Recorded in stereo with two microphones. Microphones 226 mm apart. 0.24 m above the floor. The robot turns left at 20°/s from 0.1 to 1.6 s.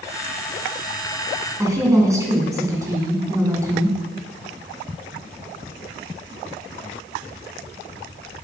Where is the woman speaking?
15° right (ahead or behind), 2 m.